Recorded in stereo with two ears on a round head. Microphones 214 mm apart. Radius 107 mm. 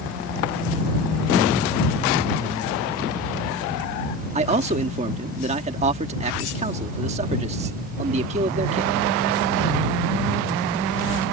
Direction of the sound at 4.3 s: 30° right (ahead or behind).